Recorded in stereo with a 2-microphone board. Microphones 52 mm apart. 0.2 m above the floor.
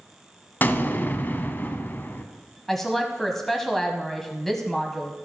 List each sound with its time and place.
0.6 s an explosion: 40° left (ahead or behind), 0.7 m
2.7 s a woman speaking: 5° left (ahead or behind), 1.0 m